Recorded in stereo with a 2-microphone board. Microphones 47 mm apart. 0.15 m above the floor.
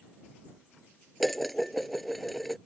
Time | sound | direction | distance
1.2 | dishes clattering | 5° left (ahead or behind) | ?